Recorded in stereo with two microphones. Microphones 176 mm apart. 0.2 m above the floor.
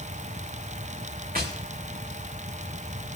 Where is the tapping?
60° right (ahead or behind), 3.5 m.